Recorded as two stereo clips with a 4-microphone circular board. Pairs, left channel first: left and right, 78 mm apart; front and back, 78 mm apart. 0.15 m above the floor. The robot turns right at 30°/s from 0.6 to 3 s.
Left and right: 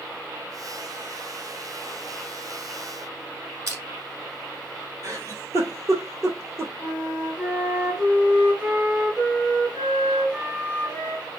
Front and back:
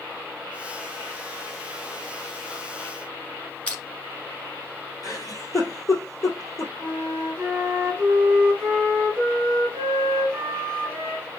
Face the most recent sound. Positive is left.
turn(degrees=-160)